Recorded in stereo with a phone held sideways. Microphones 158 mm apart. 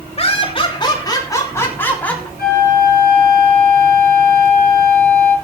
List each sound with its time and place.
0.2 s laughter: 40° left (ahead or behind), 3 m; by 2.3 s 10° left (ahead or behind), 3.5 m
2.4 s a flute: 75° left (ahead or behind), 9.5 m